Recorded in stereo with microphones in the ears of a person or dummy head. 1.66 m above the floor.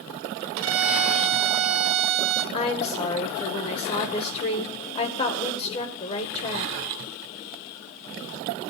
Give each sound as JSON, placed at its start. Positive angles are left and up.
{"t": 0.6, "sound": "a violin", "side_deg": -70, "distance_m": 0.8}
{"t": 2.5, "sound": "a woman speaking", "side_deg": 35, "distance_m": 0.9}